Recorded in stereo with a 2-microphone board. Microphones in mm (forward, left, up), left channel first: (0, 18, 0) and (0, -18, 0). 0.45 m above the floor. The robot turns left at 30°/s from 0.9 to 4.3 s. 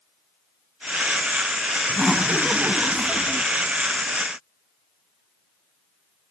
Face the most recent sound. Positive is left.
turn(degrees=-60)